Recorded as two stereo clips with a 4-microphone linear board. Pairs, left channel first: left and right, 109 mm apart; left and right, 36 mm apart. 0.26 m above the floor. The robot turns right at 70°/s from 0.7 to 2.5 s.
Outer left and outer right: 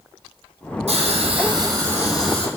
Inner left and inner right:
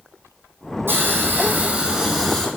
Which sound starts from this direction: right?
A hiss, at 0.9 s.